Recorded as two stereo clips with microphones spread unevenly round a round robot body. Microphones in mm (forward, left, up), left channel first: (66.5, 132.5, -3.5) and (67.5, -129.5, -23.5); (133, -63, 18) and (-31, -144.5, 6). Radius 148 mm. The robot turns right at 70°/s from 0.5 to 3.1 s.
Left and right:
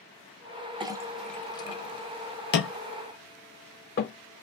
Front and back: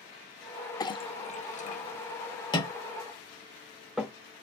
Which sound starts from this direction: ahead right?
A clink, at 0.8 s.